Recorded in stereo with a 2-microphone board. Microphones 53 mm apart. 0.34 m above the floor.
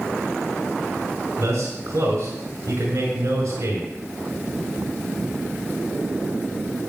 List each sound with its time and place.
1.4 s a man speaking: 75° right (ahead or behind), 5 m